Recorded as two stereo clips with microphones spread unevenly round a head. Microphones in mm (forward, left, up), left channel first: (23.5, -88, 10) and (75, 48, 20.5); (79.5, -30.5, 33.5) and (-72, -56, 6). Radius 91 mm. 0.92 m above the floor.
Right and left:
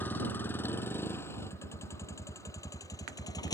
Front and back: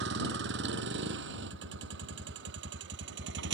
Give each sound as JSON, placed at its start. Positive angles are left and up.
{"t": 0.0, "sound": "a vehicle", "azimuth_deg": 170}